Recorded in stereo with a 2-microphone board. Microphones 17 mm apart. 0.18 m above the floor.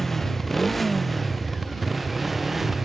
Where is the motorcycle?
10° left (ahead or behind); by 2.9 s 15° right (ahead or behind).